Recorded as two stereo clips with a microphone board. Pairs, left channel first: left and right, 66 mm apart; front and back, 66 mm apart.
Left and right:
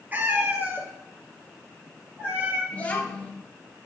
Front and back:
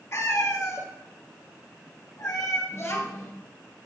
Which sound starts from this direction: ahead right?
A cat meowing, at 0.1 s.